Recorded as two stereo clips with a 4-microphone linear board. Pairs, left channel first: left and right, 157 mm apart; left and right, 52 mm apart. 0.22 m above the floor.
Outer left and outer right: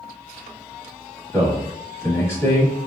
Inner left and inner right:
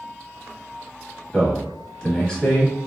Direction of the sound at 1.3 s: 20° left (ahead or behind).